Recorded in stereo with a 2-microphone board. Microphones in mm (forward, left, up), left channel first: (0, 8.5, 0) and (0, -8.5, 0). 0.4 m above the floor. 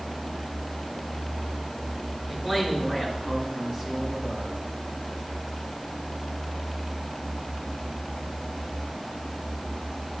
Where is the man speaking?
40° right (ahead or behind), 5 m.